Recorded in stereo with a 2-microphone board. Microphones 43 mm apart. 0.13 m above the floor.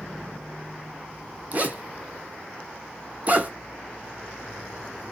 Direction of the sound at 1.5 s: 40° right (ahead or behind).